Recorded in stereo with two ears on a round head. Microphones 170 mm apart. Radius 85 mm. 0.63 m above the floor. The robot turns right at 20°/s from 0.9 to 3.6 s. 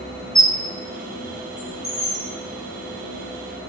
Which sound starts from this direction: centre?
A squeak, at 0.3 s.